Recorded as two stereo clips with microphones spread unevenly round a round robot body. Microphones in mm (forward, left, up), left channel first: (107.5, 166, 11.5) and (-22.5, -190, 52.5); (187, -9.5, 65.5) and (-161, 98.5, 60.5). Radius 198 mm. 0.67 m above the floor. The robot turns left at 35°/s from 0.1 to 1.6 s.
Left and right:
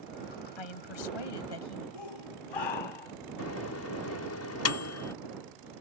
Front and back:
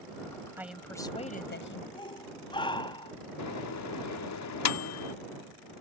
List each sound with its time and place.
0.6 s a woman speaking: 80° left; by 1.8 s 45° left
1.9 s a shout: 60° left
3.4 s a microwave: 25° left